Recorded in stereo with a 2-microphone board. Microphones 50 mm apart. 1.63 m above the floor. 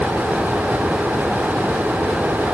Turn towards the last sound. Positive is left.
No sound to turn to.